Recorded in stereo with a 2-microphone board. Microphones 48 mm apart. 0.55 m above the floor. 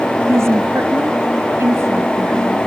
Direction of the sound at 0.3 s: 75° right (ahead or behind).